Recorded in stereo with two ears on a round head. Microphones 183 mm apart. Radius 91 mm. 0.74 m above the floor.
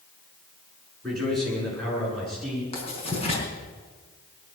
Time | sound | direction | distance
1.0 | a man speaking | centre (ahead or behind) | 8.5 m
2.7 | writing | 30° left (ahead or behind) | 4.5 m